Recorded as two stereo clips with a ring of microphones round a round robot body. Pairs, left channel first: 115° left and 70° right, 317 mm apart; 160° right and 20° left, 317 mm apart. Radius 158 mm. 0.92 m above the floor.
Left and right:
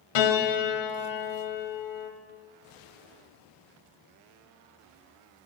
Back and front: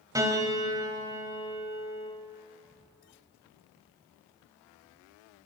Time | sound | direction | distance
0.1 | a piano | 105° left | 3 m